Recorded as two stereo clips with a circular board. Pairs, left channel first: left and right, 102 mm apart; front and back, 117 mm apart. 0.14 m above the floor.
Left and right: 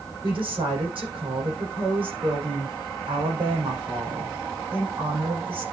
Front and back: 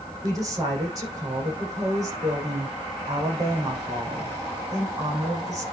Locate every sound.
0.2 s a woman speaking: 125° right, 6.5 m